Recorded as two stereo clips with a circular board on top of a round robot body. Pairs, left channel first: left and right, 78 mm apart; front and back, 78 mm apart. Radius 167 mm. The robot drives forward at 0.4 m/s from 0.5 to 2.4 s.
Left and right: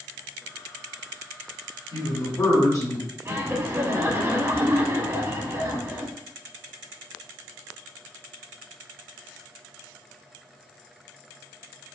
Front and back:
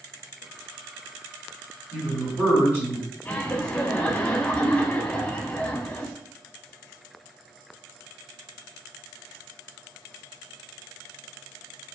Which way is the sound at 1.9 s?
110° left.